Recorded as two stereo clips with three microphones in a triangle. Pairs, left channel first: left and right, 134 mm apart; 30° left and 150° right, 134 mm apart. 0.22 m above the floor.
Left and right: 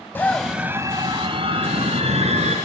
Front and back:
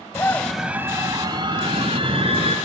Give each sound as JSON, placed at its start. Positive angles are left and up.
{"t": 0.1, "sound": "a scream", "azimuth_deg": 45, "distance_m": 1.1}